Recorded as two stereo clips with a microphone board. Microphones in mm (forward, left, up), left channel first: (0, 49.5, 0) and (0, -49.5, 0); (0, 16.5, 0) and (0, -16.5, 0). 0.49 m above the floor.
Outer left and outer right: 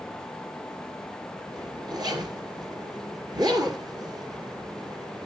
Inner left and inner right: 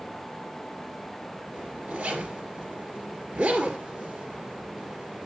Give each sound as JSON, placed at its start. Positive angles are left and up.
{"t": 1.5, "sound": "a zipper", "side_deg": -45, "distance_m": 2.0}